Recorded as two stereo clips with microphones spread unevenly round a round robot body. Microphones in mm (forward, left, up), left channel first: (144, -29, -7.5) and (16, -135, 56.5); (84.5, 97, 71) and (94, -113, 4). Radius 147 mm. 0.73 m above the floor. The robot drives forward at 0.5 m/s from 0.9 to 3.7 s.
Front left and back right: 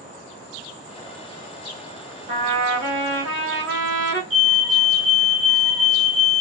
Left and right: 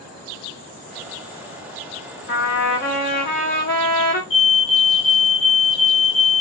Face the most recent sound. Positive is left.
turn(degrees=175)